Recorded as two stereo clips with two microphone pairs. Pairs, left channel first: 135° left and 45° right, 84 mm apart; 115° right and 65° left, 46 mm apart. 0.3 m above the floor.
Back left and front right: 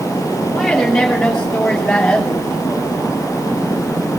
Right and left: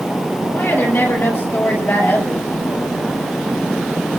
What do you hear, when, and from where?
0.5 s a woman speaking: 140° right, 6.5 m; by 2.9 s 155° right, 4.5 m